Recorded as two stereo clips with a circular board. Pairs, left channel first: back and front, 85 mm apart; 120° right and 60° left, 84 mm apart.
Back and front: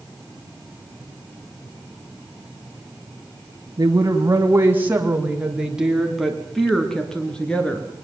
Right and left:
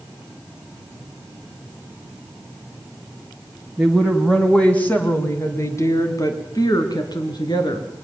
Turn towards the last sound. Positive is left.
turn(degrees=-105)